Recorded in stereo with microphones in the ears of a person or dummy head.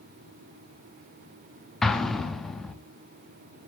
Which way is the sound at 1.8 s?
5° left (ahead or behind).